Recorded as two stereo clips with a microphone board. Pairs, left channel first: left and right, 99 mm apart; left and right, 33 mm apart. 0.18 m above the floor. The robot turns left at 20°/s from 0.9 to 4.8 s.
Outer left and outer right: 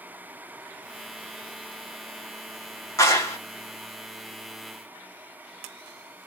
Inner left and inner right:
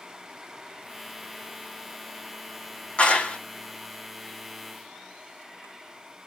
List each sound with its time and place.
3.0 s a clap: 30° left (ahead or behind), 1.4 m